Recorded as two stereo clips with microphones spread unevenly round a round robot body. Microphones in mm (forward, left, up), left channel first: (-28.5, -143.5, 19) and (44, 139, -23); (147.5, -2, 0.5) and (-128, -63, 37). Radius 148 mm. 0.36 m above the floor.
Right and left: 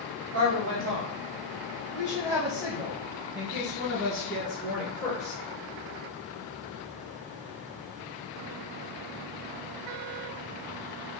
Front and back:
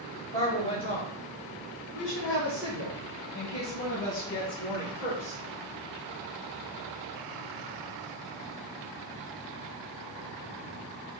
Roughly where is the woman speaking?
Left.